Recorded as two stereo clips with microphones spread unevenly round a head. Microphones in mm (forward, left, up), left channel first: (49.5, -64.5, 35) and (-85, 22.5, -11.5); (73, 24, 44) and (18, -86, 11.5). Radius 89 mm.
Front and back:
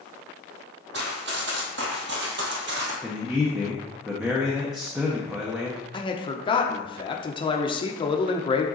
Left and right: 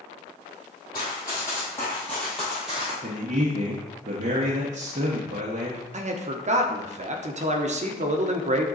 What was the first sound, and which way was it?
Running footsteps, 115° left.